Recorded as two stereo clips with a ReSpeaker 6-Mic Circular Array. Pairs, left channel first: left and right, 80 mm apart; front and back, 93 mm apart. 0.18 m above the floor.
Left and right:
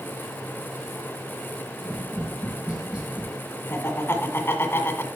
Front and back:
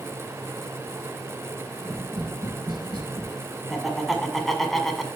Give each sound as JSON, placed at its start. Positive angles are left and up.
{"t": 1.8, "sound": "tapping", "azimuth_deg": -165, "distance_m": 4.0}
{"t": 3.7, "sound": "laughter", "azimuth_deg": 85, "distance_m": 1.6}